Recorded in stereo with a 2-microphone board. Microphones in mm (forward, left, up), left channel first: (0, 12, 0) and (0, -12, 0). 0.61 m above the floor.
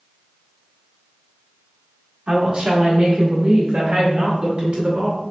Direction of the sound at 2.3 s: 50° right (ahead or behind).